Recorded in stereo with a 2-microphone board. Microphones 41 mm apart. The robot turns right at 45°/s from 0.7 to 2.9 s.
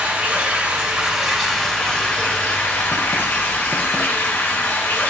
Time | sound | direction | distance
0.0 | running water | 35° right | 2.5 m